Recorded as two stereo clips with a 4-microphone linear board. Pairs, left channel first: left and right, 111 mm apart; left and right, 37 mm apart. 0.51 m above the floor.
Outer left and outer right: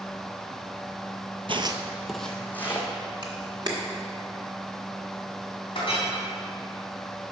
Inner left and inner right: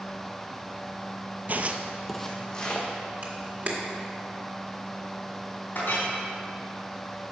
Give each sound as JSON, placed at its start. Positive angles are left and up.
{"t": 1.5, "sound": "footsteps", "side_deg": -55, "distance_m": 0.7}
{"t": 3.2, "sound": "a camera shutter", "side_deg": -40, "distance_m": 1.6}
{"t": 5.8, "sound": "a clink", "side_deg": 50, "distance_m": 3.0}